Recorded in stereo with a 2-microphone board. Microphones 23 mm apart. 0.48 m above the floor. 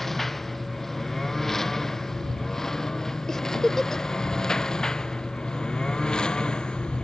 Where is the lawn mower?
10° left (ahead or behind); by 7.0 s 40° left (ahead or behind).